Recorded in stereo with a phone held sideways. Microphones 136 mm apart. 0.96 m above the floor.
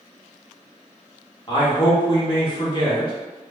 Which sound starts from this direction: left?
A man speaking, at 1.5 s.